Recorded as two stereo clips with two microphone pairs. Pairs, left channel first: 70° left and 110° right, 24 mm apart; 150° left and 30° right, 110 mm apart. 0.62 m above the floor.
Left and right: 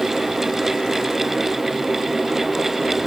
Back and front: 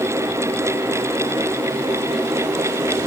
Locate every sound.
Only background noise.